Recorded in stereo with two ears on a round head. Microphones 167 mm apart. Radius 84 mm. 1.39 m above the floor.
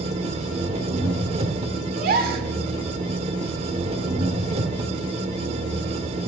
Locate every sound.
0.0 s an engine running: 35° right (ahead or behind), 1.6 m
1.9 s a gasp: 55° right (ahead or behind), 1.9 m